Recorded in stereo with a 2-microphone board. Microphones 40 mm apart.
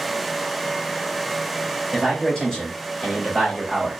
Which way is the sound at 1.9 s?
20° left (ahead or behind).